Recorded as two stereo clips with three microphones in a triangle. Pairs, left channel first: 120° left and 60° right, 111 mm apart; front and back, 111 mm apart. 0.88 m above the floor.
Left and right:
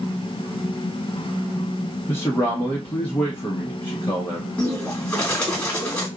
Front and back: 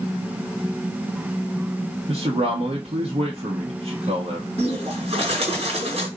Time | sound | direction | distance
2.1 | a man speaking | 165° right | 1.0 m
4.6 | a bird | 160° right | 1.8 m